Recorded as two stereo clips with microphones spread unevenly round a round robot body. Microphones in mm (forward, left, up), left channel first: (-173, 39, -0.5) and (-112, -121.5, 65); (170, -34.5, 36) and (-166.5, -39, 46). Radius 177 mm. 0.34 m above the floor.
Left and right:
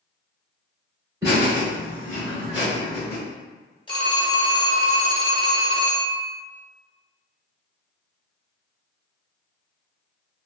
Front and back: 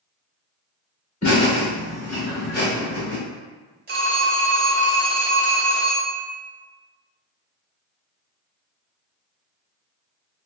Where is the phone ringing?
130° left, 1.0 m.